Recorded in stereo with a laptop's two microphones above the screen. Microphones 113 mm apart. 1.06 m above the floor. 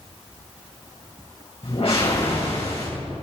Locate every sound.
1.6 s a whoosh: 60° left (ahead or behind), 4.5 m